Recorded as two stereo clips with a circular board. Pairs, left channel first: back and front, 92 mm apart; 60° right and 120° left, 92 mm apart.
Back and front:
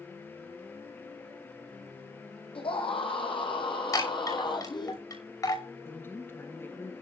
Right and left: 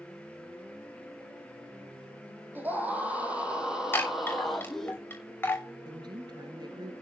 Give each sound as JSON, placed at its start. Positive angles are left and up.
{"t": 2.5, "sound": "a scream", "azimuth_deg": -170, "distance_m": 4.5}
{"t": 3.9, "sound": "a chime", "azimuth_deg": -130, "distance_m": 6.0}
{"t": 5.8, "sound": "a woman speaking", "azimuth_deg": 120, "distance_m": 1.6}